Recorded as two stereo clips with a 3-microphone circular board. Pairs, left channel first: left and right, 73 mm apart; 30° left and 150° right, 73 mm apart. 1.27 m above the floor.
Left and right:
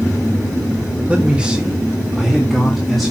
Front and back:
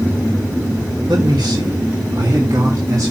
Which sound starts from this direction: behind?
A man speaking, at 1.1 s.